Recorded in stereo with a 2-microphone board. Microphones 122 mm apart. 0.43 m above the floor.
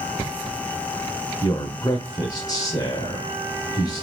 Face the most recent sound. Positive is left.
turn(degrees=30)  # may be behind; listen again after turning